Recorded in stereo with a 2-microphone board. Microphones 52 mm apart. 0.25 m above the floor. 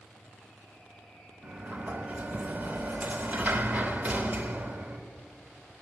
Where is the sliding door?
30° right (ahead or behind), 0.8 m.